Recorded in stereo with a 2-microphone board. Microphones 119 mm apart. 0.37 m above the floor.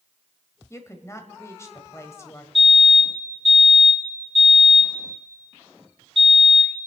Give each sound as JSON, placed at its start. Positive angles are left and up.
{"t": 0.7, "sound": "a woman speaking", "side_deg": 25, "distance_m": 1.6}
{"t": 2.5, "sound": "a fire alarm", "side_deg": -55, "distance_m": 5.5}